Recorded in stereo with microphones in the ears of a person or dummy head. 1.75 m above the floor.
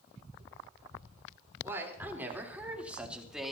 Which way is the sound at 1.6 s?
15° right (ahead or behind).